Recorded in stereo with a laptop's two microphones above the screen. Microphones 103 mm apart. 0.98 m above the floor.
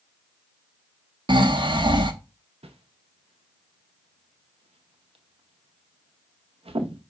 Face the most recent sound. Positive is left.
turn(degrees=-90)